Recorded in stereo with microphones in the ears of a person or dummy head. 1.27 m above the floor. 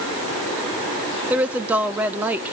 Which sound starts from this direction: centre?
A woman speaking, at 1.3 s.